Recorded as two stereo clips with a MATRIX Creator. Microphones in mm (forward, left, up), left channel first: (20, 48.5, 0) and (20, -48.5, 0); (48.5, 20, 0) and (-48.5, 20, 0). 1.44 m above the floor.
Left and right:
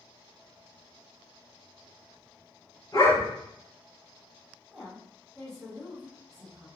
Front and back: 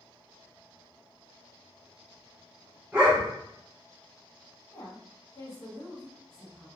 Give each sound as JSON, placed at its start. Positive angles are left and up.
{"t": 2.9, "sound": "a dog barking", "azimuth_deg": 110, "distance_m": 1.8}
{"t": 4.7, "sound": "a woman speaking", "azimuth_deg": 10, "distance_m": 1.1}